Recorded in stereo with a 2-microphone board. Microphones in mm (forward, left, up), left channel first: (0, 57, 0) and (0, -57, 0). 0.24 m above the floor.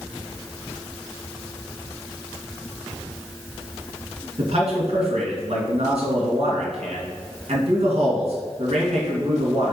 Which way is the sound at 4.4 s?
65° right (ahead or behind).